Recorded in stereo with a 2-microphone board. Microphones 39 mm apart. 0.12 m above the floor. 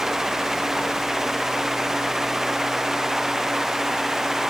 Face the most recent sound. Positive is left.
No sound to turn to.